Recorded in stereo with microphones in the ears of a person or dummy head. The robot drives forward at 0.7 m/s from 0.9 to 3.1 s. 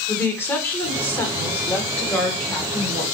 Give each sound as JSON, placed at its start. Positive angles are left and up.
{"t": 0.1, "sound": "a woman speaking", "side_deg": 15, "distance_m": 1.6}